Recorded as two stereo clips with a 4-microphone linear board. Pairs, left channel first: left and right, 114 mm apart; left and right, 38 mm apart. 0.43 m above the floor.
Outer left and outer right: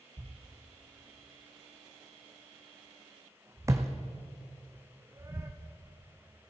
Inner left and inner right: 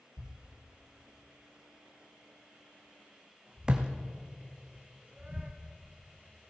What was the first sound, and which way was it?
A thud, 25° right (ahead or behind).